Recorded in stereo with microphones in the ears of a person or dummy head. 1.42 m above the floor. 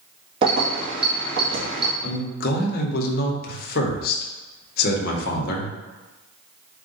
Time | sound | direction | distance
0.4 | keys jangling | 40° right (ahead or behind) | 1.5 m
2.0 | a man speaking | 45° left (ahead or behind) | 1.1 m